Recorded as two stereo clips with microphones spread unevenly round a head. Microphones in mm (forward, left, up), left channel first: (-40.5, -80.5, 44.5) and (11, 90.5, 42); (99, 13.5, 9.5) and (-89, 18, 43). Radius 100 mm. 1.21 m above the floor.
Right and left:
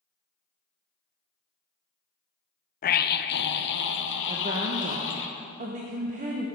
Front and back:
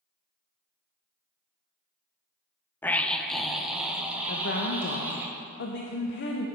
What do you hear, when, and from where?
2.8 s a scream: 75° right, 0.6 m; by 5.3 s 100° right, 1.8 m
4.3 s a woman speaking: 25° left, 0.9 m